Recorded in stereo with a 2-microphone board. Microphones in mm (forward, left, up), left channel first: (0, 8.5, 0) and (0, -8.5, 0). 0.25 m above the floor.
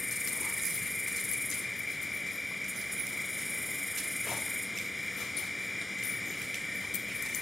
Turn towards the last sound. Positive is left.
turn(degrees=0)  # may be behind; listen again after turning